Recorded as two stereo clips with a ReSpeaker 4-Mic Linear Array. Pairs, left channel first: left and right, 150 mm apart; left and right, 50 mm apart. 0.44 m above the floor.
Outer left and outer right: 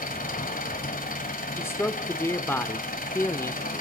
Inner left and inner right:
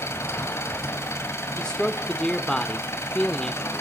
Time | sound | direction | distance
0.0 | an engine running | 65° left (ahead or behind) | 2 m
1.6 | a man speaking | 15° left (ahead or behind) | 0.9 m